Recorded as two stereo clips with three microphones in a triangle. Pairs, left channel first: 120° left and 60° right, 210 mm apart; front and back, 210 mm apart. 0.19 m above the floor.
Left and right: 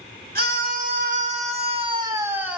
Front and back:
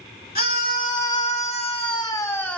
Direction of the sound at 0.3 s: 30° right.